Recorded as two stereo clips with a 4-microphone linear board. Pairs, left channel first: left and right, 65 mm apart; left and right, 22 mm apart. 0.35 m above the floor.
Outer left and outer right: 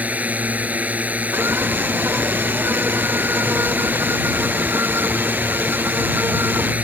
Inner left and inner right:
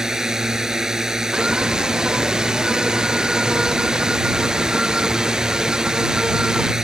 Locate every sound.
0.0 s a drone: 25° right (ahead or behind)
1.3 s a scream: 40° right (ahead or behind)